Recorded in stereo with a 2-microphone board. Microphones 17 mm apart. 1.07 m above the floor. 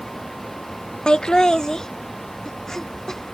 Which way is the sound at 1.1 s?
55° left (ahead or behind).